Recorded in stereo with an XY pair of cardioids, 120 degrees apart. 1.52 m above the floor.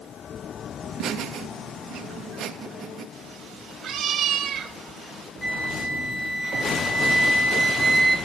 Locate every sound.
0.8 s laughter: 55° right, 2.5 m
3.1 s a cat meowing: 45° right, 3.5 m
5.4 s a flute: 5° right, 5.5 m